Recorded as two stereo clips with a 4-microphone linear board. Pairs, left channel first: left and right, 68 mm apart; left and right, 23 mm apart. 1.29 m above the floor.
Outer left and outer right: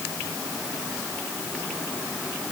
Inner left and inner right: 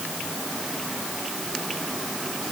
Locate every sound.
Only background noise.